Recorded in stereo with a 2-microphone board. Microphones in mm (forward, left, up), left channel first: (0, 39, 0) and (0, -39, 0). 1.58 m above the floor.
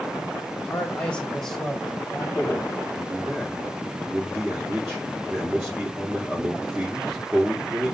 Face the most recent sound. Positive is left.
turn(degrees=-25)  # may be behind; listen again after turning